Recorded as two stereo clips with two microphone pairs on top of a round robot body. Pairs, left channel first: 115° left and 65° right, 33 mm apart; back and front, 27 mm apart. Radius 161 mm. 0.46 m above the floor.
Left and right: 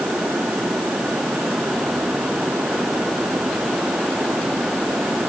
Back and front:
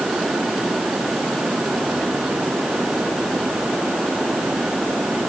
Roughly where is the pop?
I don't hear a pop.